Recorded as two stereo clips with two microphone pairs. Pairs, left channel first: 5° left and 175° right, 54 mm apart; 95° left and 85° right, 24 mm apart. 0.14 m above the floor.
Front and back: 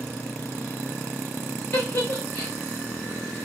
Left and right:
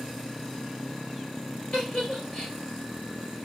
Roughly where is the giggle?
Ahead left.